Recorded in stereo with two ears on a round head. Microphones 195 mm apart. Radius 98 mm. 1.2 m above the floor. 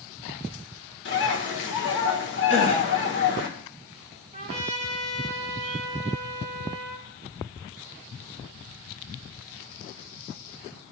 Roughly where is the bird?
Left.